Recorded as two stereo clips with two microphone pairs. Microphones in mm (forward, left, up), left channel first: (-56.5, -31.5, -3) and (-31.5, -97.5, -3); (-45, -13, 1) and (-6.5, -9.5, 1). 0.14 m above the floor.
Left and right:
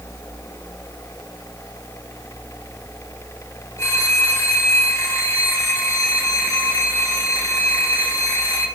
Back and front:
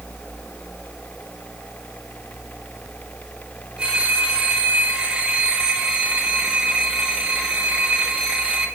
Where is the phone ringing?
65° left, 3.5 m.